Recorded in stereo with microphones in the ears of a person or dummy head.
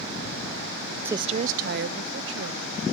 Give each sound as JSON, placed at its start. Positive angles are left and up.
{"t": 1.1, "sound": "a woman speaking", "side_deg": -10}